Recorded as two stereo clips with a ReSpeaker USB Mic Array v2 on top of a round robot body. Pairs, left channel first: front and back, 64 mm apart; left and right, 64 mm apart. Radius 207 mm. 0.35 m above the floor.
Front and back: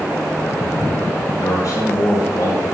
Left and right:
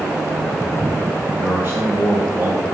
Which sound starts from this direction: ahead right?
A man speaking, at 1.3 s.